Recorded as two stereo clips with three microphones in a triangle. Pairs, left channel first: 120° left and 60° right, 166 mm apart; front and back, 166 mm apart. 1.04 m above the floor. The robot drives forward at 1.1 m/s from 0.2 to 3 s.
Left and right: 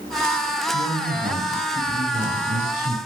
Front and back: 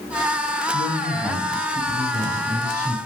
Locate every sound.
0.7 s a man speaking: 90° right, 6 m; by 3.0 s 110° right, 6.5 m